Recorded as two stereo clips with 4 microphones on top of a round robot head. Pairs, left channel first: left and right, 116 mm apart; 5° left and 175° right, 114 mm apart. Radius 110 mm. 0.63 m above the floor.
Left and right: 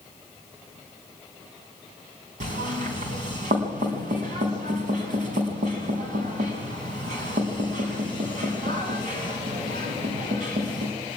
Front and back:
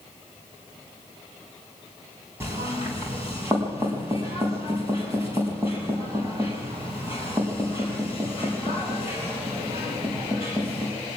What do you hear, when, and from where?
2.4 s knocking: 105° right, 5 m